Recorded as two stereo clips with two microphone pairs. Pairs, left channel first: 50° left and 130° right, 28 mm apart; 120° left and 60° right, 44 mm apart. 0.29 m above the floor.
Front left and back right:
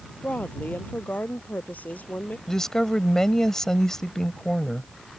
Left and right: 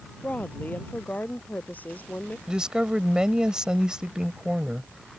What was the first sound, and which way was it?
A woman speaking, 70° left.